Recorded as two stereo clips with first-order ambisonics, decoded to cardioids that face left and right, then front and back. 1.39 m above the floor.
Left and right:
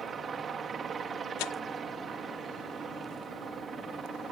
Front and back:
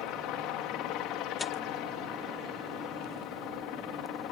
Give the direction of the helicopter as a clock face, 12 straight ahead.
1 o'clock.